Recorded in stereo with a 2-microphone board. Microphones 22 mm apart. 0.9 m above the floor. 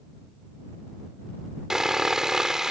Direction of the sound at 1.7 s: 30° right (ahead or behind).